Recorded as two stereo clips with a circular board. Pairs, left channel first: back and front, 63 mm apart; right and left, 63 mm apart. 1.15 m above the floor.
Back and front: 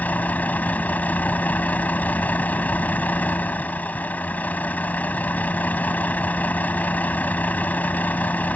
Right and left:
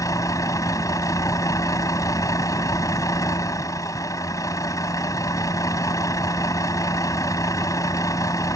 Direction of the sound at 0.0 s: 115° right.